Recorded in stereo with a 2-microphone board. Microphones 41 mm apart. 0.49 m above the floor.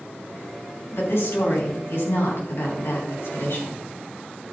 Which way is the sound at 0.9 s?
75° left (ahead or behind).